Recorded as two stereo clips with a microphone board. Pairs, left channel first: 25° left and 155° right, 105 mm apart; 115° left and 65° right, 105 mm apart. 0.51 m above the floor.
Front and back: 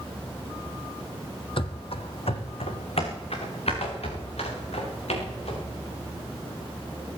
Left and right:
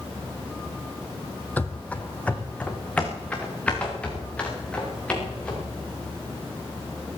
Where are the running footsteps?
40° left, 1.0 m; by 5.7 s 35° left, 6.5 m.